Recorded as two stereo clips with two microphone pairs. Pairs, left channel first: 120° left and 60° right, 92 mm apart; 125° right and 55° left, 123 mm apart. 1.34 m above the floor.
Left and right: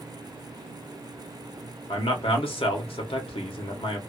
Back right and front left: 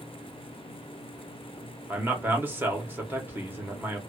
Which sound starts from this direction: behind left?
A man speaking, at 1.9 s.